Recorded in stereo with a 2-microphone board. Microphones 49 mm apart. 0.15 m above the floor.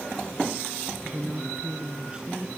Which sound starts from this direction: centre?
A woman speaking, at 1.0 s.